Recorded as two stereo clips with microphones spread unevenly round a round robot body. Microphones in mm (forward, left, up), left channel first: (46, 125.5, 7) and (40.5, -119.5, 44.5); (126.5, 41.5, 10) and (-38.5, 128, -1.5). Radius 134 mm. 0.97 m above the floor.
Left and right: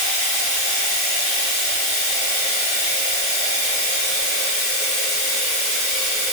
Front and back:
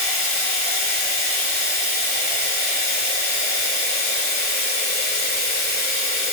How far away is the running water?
About 1.4 m.